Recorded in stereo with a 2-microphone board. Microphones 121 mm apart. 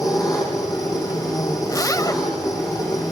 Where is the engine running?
30° left (ahead or behind), 8.5 m.